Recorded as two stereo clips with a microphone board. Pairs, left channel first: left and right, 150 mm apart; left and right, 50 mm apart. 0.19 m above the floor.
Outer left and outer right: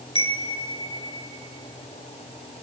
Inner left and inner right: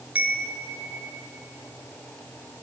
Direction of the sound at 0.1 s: 35° right (ahead or behind).